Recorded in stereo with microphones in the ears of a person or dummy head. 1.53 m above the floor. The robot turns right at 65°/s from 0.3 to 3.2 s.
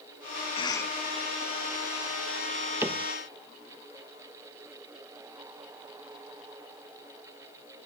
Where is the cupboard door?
10° right (ahead or behind); by 3.1 s 10° left (ahead or behind).